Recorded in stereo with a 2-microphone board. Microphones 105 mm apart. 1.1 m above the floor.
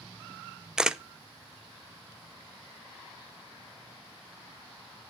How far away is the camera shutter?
About 0.6 m.